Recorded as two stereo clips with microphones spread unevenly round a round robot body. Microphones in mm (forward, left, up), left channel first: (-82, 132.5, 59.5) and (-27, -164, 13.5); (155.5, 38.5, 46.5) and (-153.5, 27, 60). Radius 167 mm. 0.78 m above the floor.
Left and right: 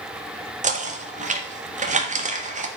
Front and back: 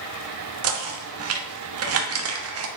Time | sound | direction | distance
0.6 | knocking | 140° right | 1.4 m